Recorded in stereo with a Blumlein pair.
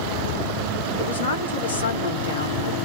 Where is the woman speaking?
70° left, 1.0 m.